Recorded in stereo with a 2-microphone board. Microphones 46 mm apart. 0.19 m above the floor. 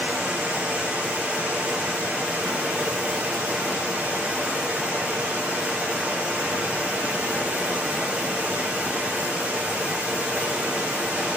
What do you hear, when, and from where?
0.0 s running water: 20° right (ahead or behind), 4.5 m